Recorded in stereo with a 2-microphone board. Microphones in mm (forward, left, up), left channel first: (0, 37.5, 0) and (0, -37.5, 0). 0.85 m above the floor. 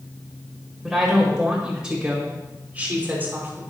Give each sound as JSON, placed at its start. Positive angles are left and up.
{"t": 0.8, "sound": "a woman speaking", "side_deg": -5, "distance_m": 4.0}